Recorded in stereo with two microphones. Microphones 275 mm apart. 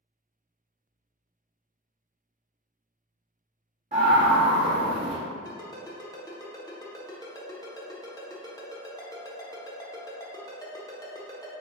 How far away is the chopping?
No chopping in this recording.